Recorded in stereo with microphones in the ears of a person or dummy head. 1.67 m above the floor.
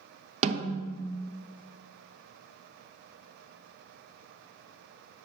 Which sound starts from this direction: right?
A snare drum, at 0.4 s.